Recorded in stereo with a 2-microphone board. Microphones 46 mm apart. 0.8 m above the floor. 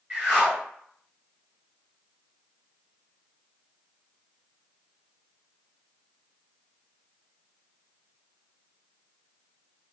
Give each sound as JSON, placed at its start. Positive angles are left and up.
{"t": 0.1, "sound": "a whoosh", "side_deg": -25, "distance_m": 1.2}